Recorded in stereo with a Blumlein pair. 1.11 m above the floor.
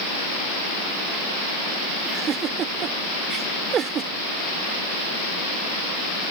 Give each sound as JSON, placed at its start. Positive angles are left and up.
{"t": 2.0, "sound": "a giggle", "azimuth_deg": -25}